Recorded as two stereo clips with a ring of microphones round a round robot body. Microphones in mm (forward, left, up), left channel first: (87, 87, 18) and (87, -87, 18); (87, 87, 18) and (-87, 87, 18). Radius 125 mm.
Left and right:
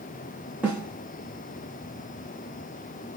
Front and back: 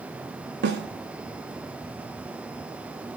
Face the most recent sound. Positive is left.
turn(degrees=-175)